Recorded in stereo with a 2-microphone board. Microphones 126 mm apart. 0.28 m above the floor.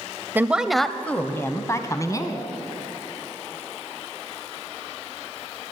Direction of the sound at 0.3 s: 15° right (ahead or behind).